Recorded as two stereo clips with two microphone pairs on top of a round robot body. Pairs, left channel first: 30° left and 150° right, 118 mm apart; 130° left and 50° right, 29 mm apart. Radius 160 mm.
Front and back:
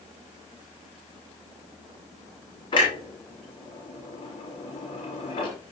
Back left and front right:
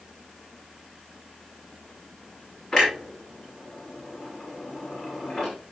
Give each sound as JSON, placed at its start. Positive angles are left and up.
{"t": 2.7, "sound": "a clunk", "azimuth_deg": 75, "distance_m": 5.0}